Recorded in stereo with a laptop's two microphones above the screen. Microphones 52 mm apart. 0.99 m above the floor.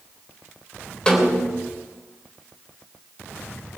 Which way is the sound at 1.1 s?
15° left (ahead or behind).